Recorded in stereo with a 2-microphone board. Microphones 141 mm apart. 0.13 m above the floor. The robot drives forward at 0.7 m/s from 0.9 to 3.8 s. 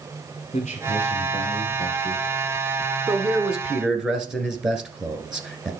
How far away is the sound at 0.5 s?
About 2.5 m.